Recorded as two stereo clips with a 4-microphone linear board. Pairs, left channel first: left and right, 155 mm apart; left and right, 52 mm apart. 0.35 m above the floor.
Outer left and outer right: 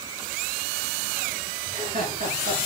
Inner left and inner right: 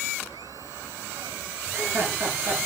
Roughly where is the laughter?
Right.